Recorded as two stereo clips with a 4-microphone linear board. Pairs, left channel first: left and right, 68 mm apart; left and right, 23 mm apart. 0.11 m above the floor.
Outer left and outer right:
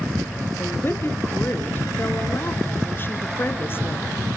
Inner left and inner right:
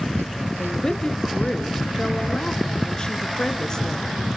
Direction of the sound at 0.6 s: 35° left (ahead or behind).